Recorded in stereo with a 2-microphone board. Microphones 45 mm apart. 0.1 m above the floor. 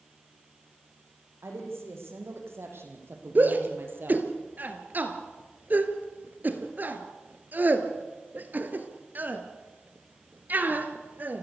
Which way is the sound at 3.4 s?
40° right (ahead or behind).